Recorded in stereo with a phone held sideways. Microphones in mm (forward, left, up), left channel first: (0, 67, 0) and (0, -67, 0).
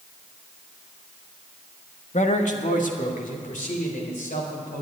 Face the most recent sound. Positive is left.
turn(degrees=75)  # may be behind; listen again after turning